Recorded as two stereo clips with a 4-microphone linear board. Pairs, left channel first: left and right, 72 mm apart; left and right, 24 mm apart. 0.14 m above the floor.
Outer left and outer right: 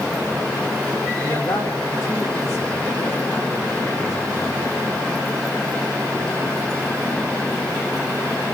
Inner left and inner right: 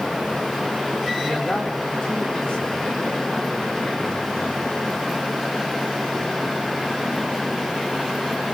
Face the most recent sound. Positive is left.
turn(degrees=60)  # may be behind; listen again after turning